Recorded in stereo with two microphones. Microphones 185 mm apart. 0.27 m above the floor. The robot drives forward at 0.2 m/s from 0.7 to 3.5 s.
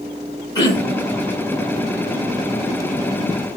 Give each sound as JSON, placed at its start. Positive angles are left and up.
{"t": 0.6, "sound": "throat clearing", "side_deg": 20, "distance_m": 1.3}